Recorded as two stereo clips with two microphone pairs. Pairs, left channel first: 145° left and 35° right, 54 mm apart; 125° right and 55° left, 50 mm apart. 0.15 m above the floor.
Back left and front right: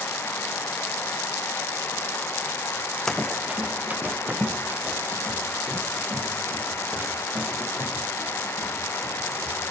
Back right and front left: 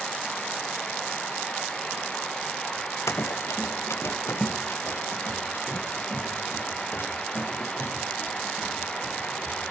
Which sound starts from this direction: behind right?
Running footsteps, at 3.1 s.